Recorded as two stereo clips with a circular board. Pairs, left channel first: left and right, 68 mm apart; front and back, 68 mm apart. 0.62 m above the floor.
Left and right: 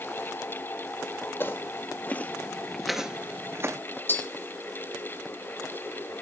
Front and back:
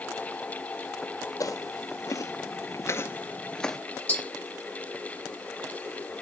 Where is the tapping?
50° left, 1.5 m.